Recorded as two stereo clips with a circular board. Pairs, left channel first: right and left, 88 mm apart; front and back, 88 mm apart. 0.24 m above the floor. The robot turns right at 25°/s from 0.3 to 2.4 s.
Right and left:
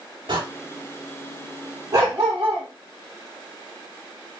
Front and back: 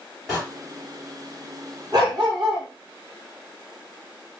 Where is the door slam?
90° left, 4 m.